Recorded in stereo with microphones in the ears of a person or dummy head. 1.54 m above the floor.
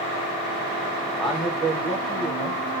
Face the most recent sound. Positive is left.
turn(degrees=0)  # may be behind; listen again after turning